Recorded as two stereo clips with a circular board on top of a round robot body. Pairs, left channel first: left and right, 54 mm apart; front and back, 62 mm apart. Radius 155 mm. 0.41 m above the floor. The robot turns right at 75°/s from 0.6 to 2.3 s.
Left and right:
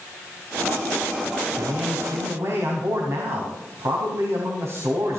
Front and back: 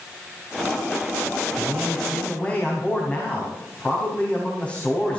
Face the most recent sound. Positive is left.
turn(degrees=-65)